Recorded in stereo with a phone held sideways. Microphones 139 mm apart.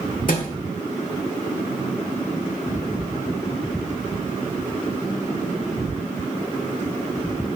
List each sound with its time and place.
0.3 s a thud: 70° left (ahead or behind), 1.6 m